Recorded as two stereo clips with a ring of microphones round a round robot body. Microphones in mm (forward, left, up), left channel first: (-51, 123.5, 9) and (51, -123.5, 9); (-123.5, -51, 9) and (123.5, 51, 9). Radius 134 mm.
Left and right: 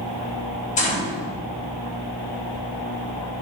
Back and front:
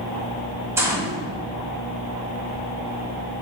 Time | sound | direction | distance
0.8 | a gunshot | 95° left | 0.8 m